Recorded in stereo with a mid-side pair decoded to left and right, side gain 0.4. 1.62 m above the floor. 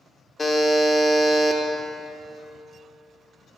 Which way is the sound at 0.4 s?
35° left.